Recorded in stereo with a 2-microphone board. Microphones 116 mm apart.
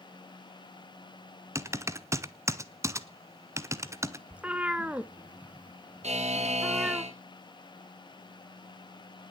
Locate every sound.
1.6 s typing on a keyboard: 25° right (ahead or behind), 0.9 m
4.3 s a cat meowing: 10° right (ahead or behind), 0.7 m
6.0 s a buzzer: 65° right (ahead or behind), 2.5 m